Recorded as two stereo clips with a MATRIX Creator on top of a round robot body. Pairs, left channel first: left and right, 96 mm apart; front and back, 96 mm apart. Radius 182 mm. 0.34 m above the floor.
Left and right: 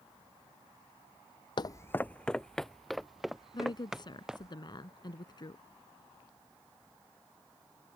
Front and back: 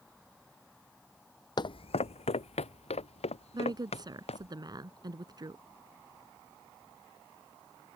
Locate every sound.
1.6 s footsteps: 45° left; by 4.5 s 5° right
3.5 s a woman speaking: 135° left